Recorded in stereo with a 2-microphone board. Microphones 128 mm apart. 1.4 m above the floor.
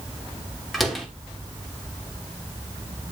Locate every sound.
0.7 s a door slam: centre (ahead or behind), 2.5 m